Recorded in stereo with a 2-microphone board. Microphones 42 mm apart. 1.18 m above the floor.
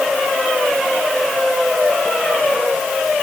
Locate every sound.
Only background noise.